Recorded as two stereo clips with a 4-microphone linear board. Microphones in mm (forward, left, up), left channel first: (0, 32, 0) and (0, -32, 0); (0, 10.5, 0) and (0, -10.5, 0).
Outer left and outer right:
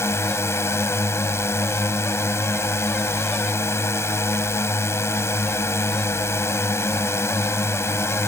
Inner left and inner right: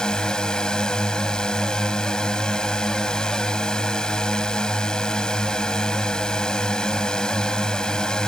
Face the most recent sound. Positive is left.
turn(degrees=45)  # may be behind; listen again after turning